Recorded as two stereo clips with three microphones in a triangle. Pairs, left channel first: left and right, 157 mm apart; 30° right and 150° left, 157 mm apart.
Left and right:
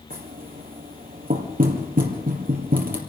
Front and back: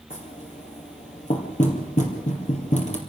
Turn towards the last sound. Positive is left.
turn(degrees=-70)